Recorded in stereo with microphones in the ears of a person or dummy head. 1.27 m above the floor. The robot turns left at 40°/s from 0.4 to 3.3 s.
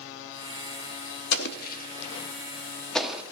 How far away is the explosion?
About 0.6 m.